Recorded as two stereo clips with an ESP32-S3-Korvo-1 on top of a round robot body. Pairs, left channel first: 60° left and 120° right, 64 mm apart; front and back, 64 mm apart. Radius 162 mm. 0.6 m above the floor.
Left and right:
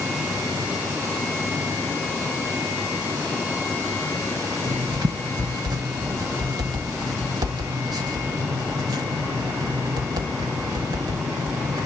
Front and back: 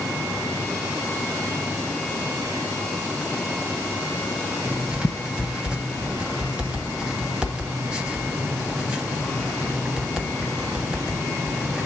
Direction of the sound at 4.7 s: 105° right.